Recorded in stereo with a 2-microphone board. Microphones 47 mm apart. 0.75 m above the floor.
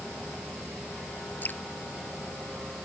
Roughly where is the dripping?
Left.